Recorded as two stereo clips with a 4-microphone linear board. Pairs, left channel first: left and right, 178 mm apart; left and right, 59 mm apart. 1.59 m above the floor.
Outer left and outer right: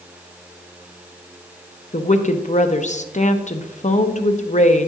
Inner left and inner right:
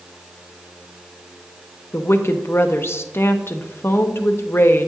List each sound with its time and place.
1.9 s a woman speaking: 45° left (ahead or behind), 0.7 m